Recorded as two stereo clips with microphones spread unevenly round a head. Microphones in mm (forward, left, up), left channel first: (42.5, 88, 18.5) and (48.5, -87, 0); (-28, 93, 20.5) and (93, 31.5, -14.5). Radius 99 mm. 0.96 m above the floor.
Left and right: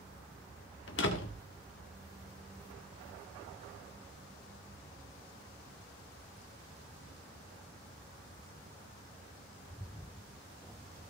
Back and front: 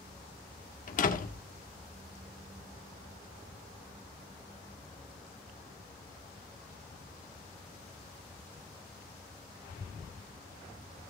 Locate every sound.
0.9 s a door slam: 130° left, 1.8 m